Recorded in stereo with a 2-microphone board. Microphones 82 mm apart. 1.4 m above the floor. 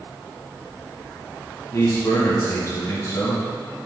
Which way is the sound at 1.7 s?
35° left (ahead or behind).